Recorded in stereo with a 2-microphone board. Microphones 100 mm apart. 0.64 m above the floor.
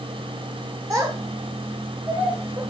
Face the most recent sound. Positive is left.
turn(degrees=-35)  # may be behind; listen again after turning